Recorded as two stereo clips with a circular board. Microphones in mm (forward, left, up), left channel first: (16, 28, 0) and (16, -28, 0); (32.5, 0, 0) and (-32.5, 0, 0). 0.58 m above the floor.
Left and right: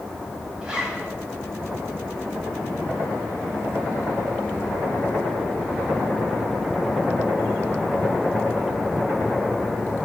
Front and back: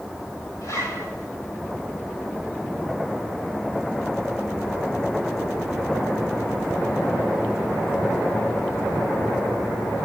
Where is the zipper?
15° right, 4 m.